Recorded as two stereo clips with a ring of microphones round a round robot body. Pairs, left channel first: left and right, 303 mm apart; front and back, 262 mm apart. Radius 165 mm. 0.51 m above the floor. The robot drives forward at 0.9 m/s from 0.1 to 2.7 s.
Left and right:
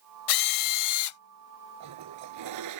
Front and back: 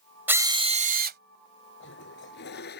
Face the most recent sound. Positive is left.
turn(degrees=-60)